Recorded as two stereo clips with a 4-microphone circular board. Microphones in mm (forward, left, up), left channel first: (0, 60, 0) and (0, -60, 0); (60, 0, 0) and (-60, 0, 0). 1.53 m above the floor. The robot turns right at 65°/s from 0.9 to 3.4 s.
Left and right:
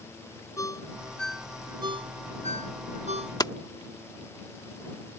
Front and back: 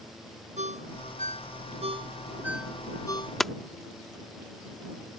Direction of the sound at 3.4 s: 85° left.